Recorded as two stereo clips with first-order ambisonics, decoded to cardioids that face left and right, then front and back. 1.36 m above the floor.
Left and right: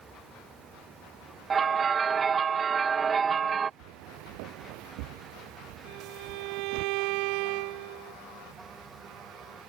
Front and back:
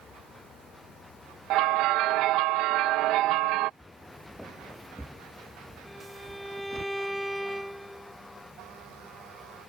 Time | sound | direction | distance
1.5 | a bell | 160° right | ?
3.8 | footsteps | 85° right | ?
5.8 | a violin | 95° right | ?